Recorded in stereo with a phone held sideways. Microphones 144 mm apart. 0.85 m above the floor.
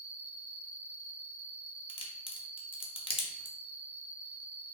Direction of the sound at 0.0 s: 15° left (ahead or behind).